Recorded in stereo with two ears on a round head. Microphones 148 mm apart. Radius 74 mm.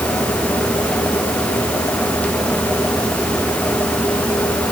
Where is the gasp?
No gasp in this recording.